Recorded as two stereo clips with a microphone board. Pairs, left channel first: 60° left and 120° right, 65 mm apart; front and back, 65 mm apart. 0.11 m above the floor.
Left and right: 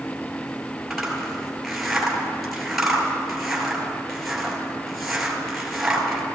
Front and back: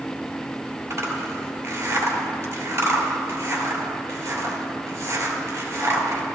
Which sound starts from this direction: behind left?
A zipper, at 0.9 s.